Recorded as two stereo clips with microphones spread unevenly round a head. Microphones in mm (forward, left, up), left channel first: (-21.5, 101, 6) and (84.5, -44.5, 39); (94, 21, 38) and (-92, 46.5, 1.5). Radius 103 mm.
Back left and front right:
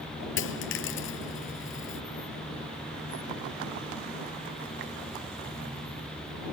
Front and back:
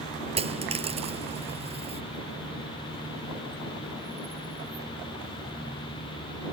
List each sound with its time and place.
0.4 s a dropped coin: 110° left